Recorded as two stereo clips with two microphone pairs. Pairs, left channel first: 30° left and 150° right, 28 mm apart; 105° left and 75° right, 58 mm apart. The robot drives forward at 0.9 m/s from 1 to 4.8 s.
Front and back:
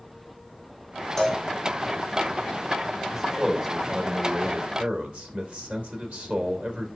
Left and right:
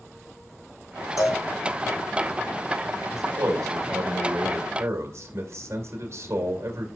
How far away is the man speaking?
About 2.0 m.